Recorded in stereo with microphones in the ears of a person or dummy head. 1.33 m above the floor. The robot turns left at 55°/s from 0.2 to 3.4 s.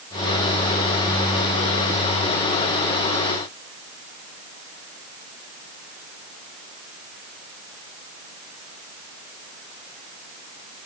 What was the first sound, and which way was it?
Only background noise.